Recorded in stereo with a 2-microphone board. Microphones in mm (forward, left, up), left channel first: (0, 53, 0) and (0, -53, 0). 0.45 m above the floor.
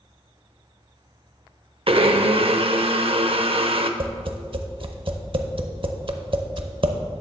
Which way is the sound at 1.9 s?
60° right (ahead or behind).